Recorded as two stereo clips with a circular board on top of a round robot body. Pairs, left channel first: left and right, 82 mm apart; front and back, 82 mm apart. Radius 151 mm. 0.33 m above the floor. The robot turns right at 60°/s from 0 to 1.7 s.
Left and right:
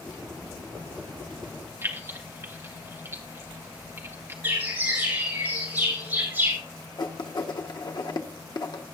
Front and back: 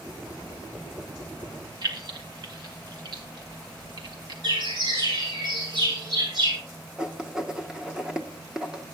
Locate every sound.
1.8 s keys jangling: 150° right, 1.7 m
4.4 s a bird: 155° right, 8 m
7.0 s writing: 100° left, 1.3 m